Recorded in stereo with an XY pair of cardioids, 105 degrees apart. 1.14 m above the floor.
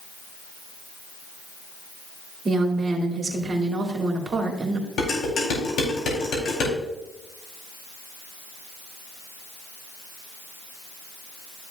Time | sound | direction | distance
2.5 | a woman speaking | 35° right | 2.5 m
5.0 | dishes clattering | 60° left | 4 m